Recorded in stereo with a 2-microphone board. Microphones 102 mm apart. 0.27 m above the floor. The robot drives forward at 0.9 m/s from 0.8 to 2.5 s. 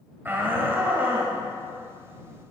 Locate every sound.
0.2 s a shout: 20° right (ahead or behind), 1.4 m